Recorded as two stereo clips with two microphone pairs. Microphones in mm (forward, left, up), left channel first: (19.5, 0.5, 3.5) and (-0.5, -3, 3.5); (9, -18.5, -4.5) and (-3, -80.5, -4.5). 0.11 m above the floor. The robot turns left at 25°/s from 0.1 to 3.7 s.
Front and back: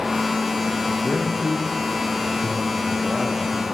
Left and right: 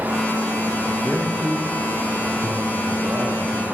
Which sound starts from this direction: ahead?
A man speaking, at 0.9 s.